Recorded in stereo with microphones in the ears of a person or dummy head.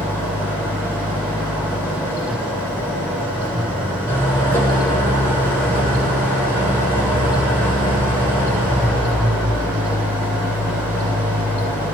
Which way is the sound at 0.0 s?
10° left (ahead or behind).